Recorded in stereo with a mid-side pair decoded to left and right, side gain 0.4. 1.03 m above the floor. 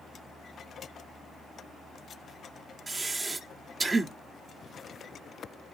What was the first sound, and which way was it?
Breathing, 30° right.